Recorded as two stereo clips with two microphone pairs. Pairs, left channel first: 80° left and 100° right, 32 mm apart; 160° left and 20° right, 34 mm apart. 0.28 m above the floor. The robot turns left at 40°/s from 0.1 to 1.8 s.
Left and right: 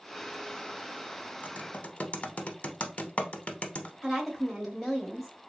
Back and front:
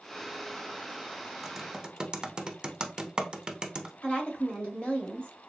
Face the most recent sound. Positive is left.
turn(degrees=170)